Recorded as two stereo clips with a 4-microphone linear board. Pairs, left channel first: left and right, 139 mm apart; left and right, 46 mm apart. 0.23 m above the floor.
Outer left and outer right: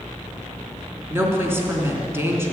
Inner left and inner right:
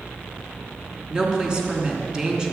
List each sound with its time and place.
1.1 s a woman speaking: 20° right (ahead or behind), 3 m